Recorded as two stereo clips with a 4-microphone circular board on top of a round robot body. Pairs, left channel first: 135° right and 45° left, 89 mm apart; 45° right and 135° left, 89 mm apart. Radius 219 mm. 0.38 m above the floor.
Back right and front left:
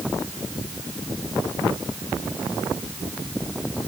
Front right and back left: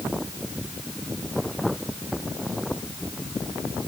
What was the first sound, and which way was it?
Only background noise.